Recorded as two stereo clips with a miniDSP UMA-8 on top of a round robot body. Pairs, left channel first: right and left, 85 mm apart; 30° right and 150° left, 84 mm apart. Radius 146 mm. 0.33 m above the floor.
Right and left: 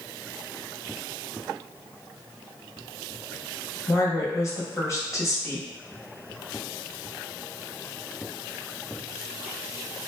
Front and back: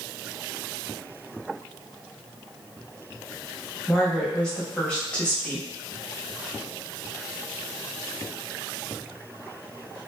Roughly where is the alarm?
No alarm in this recording.